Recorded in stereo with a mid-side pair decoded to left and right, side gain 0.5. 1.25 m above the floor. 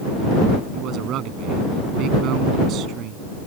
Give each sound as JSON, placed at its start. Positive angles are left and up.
{"t": 0.7, "sound": "a man speaking", "azimuth_deg": -70}